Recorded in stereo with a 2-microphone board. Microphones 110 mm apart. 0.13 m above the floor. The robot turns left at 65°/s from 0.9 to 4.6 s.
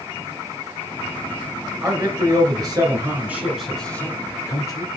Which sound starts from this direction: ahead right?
A man speaking, at 1.8 s.